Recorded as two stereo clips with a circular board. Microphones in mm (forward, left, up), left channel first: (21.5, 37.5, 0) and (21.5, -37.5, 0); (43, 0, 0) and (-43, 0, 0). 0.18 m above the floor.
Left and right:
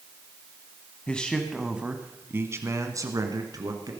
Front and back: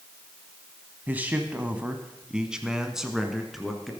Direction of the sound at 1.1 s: 140° left.